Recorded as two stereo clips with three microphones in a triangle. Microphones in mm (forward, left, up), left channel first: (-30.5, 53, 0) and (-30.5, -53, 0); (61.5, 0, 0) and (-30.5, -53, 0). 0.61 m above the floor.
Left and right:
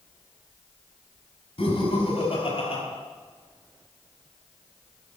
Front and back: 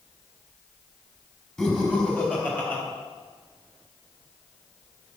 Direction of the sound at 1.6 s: 110° left.